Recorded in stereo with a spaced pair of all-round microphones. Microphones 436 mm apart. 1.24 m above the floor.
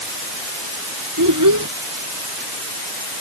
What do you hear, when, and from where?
1.2 s a child speaking: 45° right (ahead or behind)